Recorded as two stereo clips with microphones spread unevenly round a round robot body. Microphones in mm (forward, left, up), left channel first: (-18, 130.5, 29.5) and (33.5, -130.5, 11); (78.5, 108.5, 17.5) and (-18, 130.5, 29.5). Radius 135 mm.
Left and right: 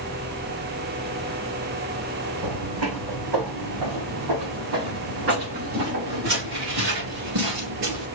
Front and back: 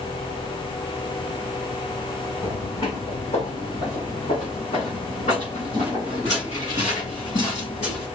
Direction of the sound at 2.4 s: 95° right.